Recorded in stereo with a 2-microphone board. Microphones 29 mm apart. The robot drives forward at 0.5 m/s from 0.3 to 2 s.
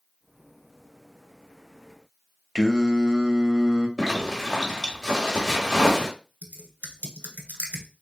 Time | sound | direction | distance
2.5 | singing | 20° right (ahead or behind) | 0.6 m
4.0 | a zipper | 15° right (ahead or behind) | 1.3 m
6.4 | typing on a keyboard | 65° right (ahead or behind) | 0.9 m